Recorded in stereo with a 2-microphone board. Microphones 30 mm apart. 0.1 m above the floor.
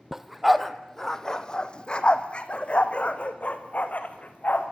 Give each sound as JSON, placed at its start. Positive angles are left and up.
{"t": 0.1, "sound": "a dog barking", "side_deg": -10, "distance_m": 1.1}